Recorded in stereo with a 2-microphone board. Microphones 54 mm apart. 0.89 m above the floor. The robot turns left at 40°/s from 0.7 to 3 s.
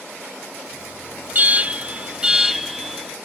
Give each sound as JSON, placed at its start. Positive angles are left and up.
{"t": 1.3, "sound": "an alarm", "azimuth_deg": -115, "distance_m": 0.8}